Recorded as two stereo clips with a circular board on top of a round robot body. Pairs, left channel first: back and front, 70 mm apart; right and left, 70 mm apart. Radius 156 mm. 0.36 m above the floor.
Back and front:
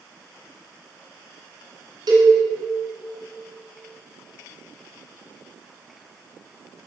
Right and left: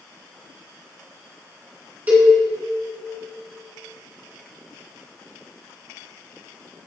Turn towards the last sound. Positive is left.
turn(degrees=25)